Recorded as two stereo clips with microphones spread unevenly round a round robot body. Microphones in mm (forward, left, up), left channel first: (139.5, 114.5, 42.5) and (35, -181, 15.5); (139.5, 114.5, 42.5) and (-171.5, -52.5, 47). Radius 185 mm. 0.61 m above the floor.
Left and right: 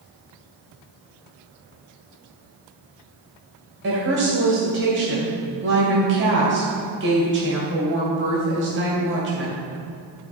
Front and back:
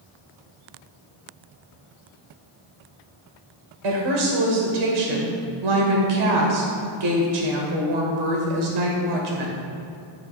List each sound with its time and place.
3.8 s a woman speaking: 170° right, 2.5 m